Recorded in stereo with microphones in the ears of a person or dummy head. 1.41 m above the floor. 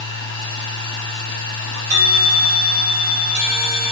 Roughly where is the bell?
Right.